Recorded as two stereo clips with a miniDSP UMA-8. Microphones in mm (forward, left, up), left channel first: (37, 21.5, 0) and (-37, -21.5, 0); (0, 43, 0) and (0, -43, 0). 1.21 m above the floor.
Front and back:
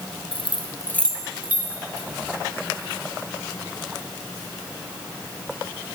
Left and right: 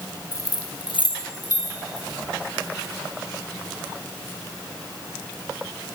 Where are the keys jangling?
35° left, 1.0 m; by 2.1 s 150° left, 2 m.